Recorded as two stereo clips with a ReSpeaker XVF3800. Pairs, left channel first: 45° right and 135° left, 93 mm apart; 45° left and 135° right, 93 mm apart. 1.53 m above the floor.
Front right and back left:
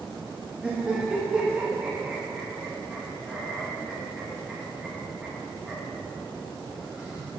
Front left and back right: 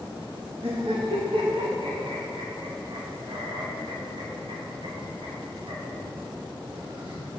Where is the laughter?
145° right, 2.5 m.